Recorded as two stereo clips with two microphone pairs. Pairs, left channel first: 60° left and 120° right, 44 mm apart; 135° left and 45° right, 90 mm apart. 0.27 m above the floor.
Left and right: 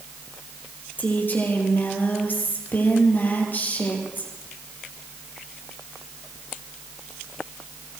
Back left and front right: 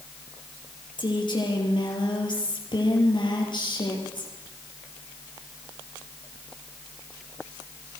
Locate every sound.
1.0 s a woman speaking: 105° left, 7.5 m